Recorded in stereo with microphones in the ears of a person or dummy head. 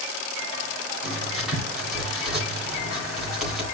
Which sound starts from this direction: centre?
Writing, at 1.0 s.